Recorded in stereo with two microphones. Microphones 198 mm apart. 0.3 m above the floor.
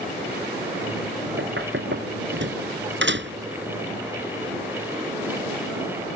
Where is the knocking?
75° right (ahead or behind).